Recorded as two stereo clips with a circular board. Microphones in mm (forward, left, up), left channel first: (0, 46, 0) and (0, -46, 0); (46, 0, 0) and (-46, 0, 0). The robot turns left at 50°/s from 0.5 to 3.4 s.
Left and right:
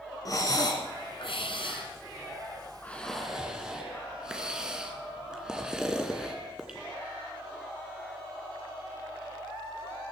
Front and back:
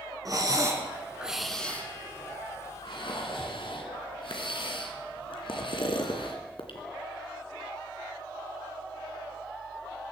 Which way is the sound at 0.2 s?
135° left.